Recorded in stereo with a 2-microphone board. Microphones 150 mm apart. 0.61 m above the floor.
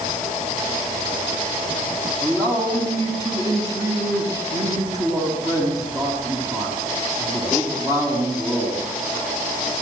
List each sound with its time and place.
2.2 s a man speaking: 25° right (ahead or behind), 5 m